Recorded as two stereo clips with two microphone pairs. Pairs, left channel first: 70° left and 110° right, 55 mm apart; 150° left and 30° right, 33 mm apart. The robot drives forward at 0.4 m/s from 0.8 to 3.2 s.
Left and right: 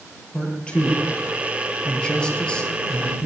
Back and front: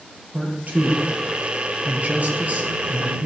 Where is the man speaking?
Straight ahead, 5 m.